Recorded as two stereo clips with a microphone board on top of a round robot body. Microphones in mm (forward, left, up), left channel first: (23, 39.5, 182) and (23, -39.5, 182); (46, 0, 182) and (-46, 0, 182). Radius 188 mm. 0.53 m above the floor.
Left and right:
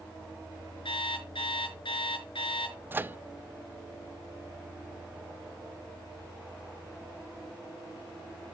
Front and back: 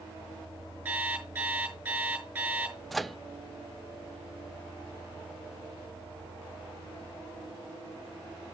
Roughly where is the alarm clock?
Left.